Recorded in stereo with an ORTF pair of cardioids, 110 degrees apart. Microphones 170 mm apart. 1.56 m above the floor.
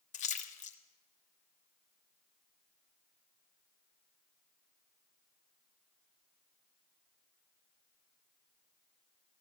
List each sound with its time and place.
0.1 s a splash: 45° left, 1.3 m